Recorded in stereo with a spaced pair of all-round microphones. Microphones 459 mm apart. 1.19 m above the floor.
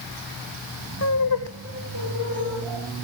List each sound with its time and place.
1.0 s laughter: 30° left (ahead or behind), 0.7 m; by 2.9 s 80° left, 3 m